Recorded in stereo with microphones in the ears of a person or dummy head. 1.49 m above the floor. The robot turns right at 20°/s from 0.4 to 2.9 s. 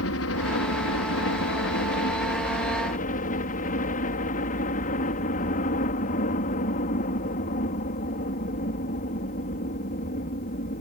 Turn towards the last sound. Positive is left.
turn(degrees=135)